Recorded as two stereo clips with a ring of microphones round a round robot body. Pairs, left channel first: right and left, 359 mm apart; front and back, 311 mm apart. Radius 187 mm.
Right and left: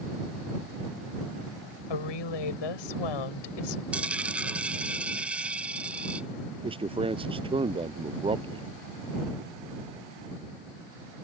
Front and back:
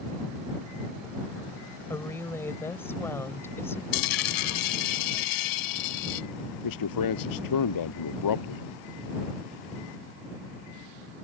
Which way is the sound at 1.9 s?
85° right.